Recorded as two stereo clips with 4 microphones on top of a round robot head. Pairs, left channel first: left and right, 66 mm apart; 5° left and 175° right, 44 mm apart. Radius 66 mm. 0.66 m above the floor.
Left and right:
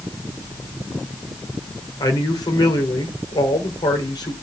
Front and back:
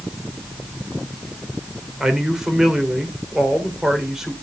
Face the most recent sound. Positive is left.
turn(degrees=105)